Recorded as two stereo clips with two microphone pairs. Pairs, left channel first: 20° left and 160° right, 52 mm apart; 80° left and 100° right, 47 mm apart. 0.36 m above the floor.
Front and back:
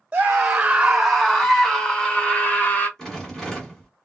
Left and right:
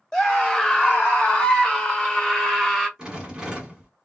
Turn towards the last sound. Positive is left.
turn(degrees=-45)